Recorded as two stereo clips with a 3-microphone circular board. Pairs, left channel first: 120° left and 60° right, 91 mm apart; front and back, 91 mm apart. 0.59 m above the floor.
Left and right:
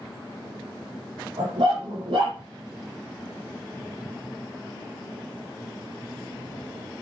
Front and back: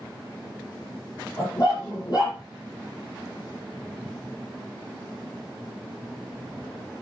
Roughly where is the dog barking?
Ahead right.